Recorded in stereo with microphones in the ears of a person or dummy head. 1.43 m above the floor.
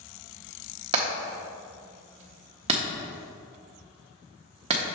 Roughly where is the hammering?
Right.